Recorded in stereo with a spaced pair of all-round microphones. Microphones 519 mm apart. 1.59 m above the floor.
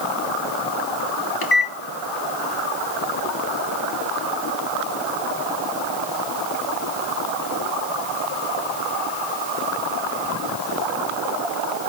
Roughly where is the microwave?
Left.